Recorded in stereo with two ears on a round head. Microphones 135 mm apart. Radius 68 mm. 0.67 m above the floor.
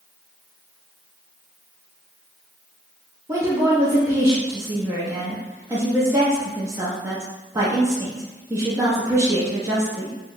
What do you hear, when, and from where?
3.3 s a woman speaking: 20° right (ahead or behind), 0.6 m